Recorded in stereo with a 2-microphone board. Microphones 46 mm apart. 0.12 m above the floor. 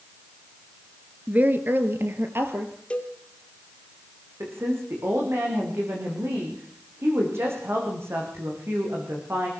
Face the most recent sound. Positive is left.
turn(degrees=-65)  # may be behind; listen again after turning